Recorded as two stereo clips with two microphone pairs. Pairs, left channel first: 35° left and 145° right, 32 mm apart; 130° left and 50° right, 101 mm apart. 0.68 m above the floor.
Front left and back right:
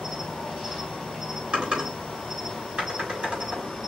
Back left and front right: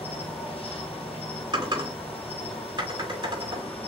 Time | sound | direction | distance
0.0 | an insect | 130° left | 2.5 m
1.5 | typing on a keyboard | 90° right | 3.5 m